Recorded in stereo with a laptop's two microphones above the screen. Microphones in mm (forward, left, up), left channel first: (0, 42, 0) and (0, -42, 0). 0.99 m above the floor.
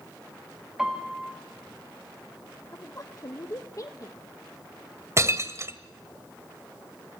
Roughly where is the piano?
Centre.